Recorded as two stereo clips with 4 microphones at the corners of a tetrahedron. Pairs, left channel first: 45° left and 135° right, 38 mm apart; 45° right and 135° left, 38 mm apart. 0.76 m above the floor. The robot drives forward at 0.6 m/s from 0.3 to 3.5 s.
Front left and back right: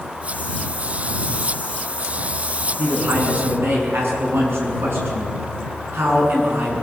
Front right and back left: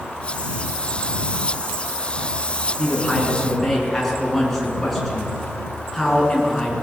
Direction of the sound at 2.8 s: 125° right.